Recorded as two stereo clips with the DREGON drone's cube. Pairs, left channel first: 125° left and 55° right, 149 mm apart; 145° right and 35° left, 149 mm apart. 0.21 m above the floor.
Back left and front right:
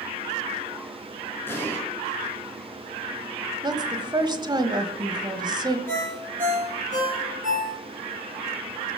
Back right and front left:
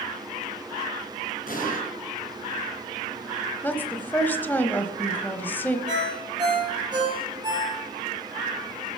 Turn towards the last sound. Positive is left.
turn(degrees=-25)